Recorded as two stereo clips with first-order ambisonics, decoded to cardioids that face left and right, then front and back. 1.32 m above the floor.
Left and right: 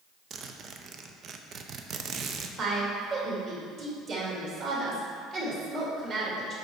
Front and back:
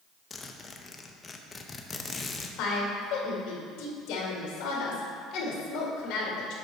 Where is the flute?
No flute in this recording.